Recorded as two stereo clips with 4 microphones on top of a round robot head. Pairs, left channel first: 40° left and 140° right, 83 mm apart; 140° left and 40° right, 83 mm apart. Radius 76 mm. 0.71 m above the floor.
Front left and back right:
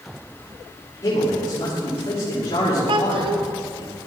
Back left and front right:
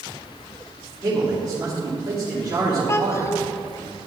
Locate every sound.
1.0 s a man speaking: 5° right, 3.5 m
2.9 s a child speaking: 160° right, 1.0 m